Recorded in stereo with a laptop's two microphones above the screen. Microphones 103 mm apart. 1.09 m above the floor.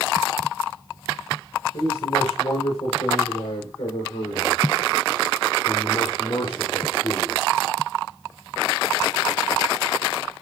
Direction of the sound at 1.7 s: 80° left.